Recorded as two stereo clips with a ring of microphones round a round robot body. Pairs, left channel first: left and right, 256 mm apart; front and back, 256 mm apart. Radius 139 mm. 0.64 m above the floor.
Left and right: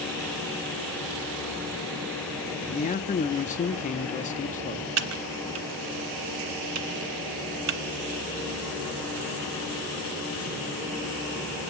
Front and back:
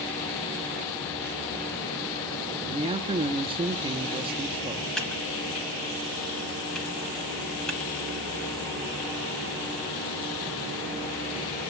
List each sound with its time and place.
2.7 s a man speaking: 125° left, 0.6 m
5.0 s typing on a keyboard: 85° right, 0.7 m